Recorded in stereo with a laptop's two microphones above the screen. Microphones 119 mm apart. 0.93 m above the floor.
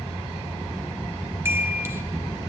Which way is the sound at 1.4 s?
20° right (ahead or behind).